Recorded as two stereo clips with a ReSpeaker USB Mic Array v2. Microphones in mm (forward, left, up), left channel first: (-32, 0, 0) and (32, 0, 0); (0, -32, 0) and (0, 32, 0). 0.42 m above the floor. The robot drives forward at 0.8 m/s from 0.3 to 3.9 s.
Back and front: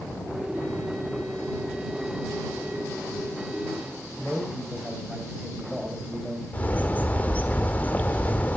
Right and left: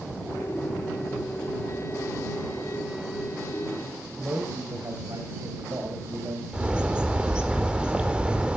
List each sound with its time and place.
4.2 s a man speaking: 75° left, 3 m
6.5 s a bird: 150° left, 1.4 m